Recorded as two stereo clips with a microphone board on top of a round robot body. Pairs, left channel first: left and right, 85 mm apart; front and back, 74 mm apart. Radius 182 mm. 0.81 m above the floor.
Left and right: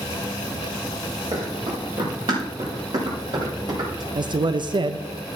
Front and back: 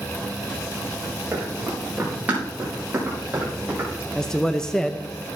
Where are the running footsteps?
105° right, 5 m; by 4.0 s 115° right, 6.5 m.